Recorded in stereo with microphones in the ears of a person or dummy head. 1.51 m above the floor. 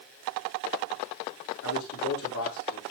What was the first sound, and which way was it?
A man speaking, 70° left (ahead or behind).